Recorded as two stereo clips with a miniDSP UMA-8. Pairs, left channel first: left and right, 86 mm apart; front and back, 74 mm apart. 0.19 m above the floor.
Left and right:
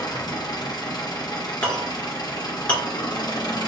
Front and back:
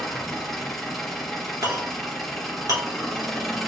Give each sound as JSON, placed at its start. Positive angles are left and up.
{"t": 0.0, "sound": "an engine running", "azimuth_deg": 85, "distance_m": 1.5}
{"t": 1.6, "sound": "a clink", "azimuth_deg": 160, "distance_m": 2.0}